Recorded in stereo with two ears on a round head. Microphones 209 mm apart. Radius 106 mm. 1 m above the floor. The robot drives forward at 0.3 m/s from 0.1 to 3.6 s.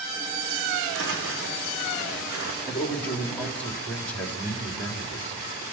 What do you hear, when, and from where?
0.9 s footsteps: 55° right (ahead or behind), 3.5 m; by 2.5 s 70° right (ahead or behind), 3.5 m
2.7 s a man speaking: 5° left (ahead or behind), 2.5 m